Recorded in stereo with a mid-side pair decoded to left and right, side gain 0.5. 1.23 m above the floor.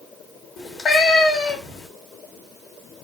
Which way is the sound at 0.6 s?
50° left.